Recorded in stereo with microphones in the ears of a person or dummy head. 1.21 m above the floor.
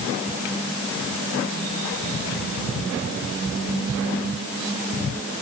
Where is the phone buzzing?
No phone buzzing in this recording.